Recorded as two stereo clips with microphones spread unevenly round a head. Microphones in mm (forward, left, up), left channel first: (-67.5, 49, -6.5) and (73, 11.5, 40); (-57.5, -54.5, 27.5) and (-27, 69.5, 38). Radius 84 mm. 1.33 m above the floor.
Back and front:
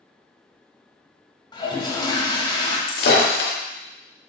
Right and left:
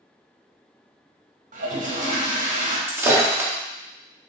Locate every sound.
1.5 s a toilet flushing: 100° left, 2 m
2.9 s breaking glass: 145° left, 1.7 m